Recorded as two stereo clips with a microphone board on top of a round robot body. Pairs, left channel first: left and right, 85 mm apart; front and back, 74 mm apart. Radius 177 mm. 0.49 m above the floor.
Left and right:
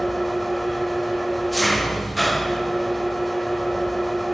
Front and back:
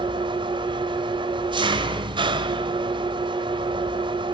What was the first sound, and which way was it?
An engine running, straight behind.